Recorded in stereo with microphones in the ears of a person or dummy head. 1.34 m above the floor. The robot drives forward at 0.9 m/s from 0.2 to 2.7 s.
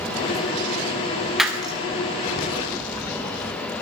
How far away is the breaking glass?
About 1.1 m.